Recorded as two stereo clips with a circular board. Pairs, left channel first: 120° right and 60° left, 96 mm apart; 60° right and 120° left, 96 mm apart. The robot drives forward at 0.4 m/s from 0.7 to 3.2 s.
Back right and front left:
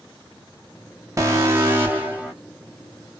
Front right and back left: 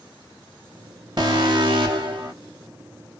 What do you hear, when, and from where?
1.2 s an alarm: 105° left, 1.0 m; by 2.3 s 135° left, 1.2 m